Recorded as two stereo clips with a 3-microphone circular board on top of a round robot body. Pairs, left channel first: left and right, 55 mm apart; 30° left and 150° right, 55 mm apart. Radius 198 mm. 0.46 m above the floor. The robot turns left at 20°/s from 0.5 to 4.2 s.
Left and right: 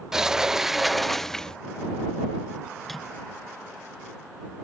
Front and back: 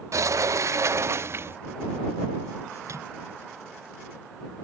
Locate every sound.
0.1 s a sliding door: 170° right; by 1.6 s 170° left
2.8 s a microwave: straight behind; by 3.1 s 175° left